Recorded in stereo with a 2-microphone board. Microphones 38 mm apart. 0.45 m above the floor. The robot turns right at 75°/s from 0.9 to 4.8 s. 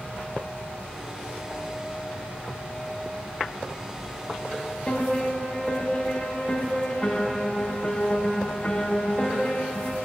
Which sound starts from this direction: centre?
A piano, at 4.9 s.